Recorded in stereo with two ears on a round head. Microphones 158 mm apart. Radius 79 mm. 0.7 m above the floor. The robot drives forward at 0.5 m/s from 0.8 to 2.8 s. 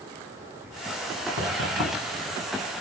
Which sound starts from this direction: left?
Knocking, at 1.4 s.